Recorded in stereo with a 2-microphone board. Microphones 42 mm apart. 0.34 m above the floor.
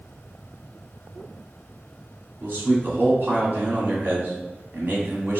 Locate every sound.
2.4 s a man speaking: 50° right (ahead or behind), 2.0 m